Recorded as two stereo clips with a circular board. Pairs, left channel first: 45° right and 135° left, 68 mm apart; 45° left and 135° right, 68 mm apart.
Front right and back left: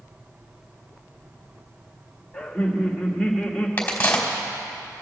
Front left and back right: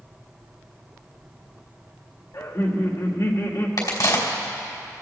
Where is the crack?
20° left, 2.5 m.